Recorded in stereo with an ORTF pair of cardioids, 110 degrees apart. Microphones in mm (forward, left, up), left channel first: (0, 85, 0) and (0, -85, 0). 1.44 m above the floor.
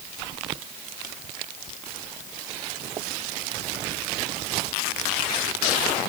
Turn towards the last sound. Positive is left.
No sound to turn to.